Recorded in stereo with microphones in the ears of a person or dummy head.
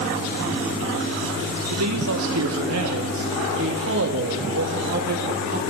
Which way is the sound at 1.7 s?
90° right.